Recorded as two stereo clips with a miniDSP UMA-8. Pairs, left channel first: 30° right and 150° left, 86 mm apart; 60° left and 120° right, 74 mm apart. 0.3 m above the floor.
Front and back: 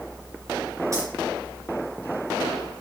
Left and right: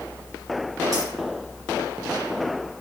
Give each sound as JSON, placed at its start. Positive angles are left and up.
{"t": 0.9, "sound": "keys jangling", "azimuth_deg": -160, "distance_m": 3.5}